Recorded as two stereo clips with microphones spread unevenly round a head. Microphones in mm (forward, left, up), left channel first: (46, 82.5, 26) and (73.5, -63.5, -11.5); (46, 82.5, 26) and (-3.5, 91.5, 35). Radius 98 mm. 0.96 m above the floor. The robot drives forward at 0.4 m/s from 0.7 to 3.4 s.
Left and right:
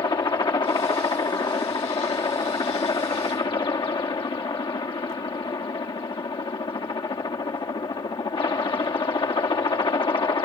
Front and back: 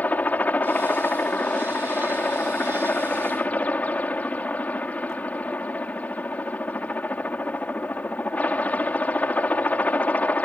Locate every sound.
0.0 s a helicopter: 40° left